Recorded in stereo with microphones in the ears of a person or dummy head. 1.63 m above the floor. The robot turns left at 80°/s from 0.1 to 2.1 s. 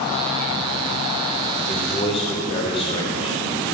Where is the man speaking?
170° right, 1.0 m; by 3.4 s 155° left, 1.0 m.